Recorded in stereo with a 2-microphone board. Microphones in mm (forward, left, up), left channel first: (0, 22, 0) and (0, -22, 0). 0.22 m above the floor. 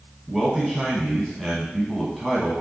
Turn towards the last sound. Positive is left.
turn(degrees=0)  # may be behind; listen again after turning